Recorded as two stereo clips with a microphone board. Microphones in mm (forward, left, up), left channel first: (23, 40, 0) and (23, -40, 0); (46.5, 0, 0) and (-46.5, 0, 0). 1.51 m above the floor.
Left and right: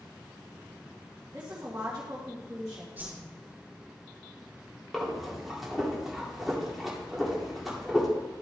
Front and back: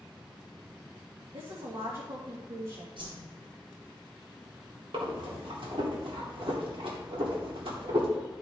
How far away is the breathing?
About 2 m.